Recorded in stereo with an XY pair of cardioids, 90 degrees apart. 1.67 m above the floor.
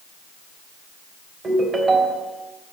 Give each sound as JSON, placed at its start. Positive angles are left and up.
{"t": 1.4, "sound": "a ringtone", "azimuth_deg": -40, "distance_m": 3.5}